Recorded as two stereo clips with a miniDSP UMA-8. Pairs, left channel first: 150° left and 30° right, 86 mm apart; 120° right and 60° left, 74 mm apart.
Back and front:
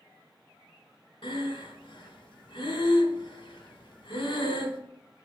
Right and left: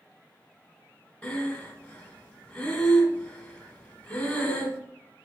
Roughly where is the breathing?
Behind.